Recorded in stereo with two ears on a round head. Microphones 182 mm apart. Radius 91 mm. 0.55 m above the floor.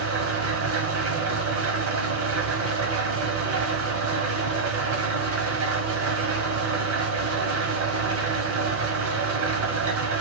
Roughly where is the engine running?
Right.